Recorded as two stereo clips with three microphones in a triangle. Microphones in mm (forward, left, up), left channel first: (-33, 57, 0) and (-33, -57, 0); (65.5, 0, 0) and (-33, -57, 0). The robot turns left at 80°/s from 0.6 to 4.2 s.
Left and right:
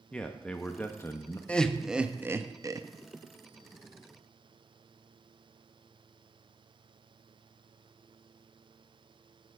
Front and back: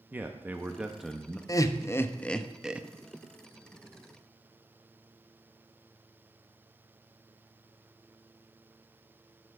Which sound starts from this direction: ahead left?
Laughter, at 1.5 s.